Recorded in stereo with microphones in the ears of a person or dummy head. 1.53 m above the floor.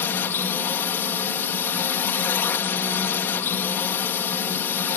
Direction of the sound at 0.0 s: 10° left (ahead or behind).